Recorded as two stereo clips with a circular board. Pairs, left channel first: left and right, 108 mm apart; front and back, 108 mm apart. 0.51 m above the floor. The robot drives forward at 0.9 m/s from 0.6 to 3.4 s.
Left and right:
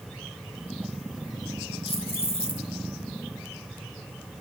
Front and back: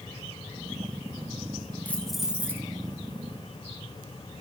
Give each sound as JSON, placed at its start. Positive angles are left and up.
{"t": 1.9, "sound": "keys jangling", "azimuth_deg": 75, "distance_m": 1.1}